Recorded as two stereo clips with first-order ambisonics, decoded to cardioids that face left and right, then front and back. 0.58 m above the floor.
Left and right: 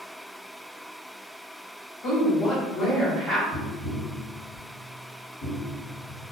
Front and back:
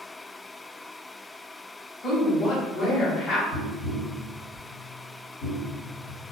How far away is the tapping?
About 1.3 m.